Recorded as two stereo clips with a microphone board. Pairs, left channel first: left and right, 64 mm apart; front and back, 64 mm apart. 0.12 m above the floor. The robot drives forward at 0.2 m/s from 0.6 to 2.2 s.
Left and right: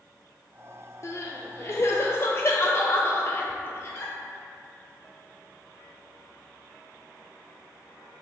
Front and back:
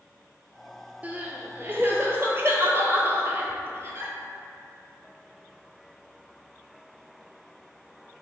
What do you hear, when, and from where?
1.0 s crying: 115° left, 0.5 m; by 4.1 s 135° left, 0.6 m